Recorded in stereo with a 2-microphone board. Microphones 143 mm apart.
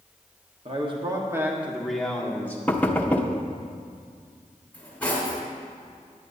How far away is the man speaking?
About 1.2 m.